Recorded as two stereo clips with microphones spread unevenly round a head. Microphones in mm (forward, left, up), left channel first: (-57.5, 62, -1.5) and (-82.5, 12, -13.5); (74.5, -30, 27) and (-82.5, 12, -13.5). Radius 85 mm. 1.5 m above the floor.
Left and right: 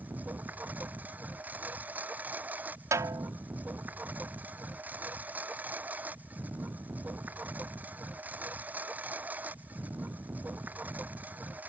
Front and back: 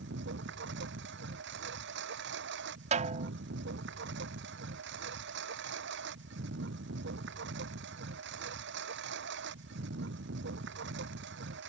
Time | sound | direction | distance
0.0 | a lawn mower | 175° right | ?
2.9 | a snare drum | 145° right | ?